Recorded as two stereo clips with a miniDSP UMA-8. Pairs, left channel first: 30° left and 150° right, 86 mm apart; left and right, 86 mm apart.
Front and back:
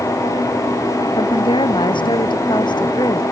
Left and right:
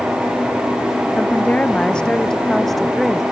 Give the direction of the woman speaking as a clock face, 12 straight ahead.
11 o'clock.